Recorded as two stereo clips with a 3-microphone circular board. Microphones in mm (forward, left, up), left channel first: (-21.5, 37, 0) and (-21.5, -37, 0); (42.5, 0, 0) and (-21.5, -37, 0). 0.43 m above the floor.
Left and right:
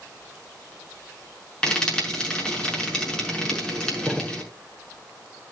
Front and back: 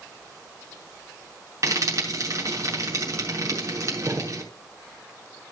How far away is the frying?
About 6 m.